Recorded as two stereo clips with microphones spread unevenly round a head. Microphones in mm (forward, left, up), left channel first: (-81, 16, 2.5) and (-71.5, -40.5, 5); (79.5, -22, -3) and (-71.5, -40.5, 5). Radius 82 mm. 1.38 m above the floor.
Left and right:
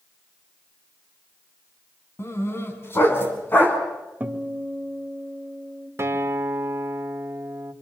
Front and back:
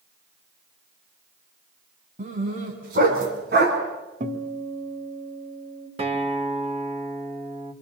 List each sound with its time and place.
2.2 s a dog barking: 140° left, 4.5 m; by 3.8 s 155° left, 5 m
4.2 s a guitar: 145° right, 3 m
6.0 s a guitar: 125° right, 2 m